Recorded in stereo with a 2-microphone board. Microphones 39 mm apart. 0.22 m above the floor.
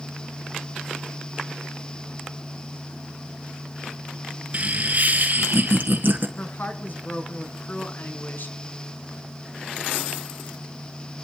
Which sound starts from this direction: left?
A woman speaking, at 6.4 s.